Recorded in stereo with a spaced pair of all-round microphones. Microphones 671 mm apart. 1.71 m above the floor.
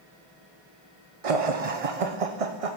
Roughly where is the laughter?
Right.